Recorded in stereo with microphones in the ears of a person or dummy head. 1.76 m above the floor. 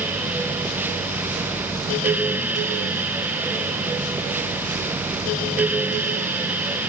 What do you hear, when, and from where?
Only background noise.